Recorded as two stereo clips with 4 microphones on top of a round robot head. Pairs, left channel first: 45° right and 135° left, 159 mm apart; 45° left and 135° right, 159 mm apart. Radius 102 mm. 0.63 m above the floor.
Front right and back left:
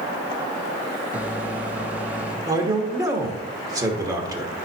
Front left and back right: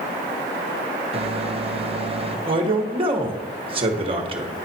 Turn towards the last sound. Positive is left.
turn(degrees=-170)